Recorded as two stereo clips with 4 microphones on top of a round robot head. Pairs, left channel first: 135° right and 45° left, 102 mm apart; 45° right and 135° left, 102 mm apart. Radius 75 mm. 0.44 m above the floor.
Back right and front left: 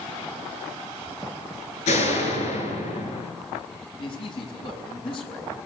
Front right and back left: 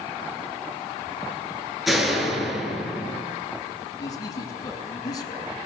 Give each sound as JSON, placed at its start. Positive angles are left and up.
{"t": 1.9, "sound": "a door slam", "azimuth_deg": -135, "distance_m": 6.5}
{"t": 4.0, "sound": "a man speaking", "azimuth_deg": -95, "distance_m": 7.0}